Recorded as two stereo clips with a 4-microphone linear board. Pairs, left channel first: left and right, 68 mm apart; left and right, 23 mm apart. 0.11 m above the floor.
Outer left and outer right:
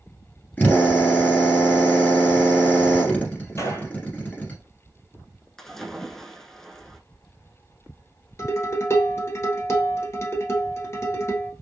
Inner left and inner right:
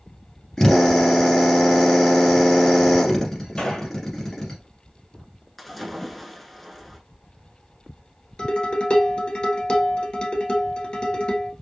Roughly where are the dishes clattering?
Left.